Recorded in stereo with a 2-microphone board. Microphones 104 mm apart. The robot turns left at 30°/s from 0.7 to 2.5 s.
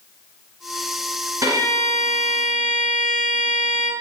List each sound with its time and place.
1.4 s a violin: 35° right, 1.2 m; by 3.9 s 65° right, 1.2 m